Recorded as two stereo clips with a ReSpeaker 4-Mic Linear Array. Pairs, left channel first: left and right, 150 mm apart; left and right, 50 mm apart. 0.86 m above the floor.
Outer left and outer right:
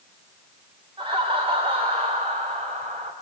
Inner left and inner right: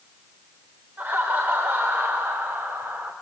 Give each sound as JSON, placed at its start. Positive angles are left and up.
{"t": 1.0, "sound": "laughter", "side_deg": -35, "distance_m": 4.0}